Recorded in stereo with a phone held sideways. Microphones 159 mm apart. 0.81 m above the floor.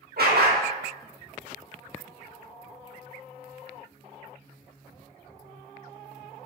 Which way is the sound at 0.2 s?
75° right (ahead or behind).